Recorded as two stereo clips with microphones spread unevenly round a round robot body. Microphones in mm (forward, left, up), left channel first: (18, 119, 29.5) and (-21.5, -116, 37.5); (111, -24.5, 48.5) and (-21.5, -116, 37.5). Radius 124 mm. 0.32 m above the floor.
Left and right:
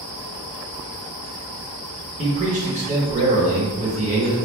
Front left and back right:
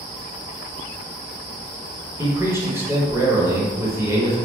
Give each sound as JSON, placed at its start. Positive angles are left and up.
{"t": 2.2, "sound": "a man speaking", "azimuth_deg": -100, "distance_m": 1.0}